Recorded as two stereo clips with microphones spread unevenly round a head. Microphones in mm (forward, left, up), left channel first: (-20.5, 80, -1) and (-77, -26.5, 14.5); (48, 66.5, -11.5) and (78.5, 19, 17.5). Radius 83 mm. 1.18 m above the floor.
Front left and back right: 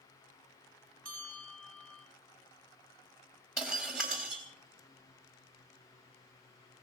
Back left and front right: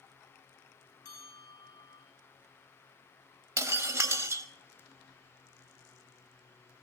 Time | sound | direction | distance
1.1 | a bell | 140° left | 6.5 m
3.6 | breaking glass | 30° right | 3 m